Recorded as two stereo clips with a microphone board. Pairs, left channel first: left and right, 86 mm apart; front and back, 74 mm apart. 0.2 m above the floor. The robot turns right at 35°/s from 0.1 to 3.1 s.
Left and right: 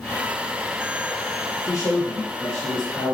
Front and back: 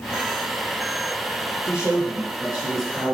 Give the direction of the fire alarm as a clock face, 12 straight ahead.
I don't hear a fire alarm.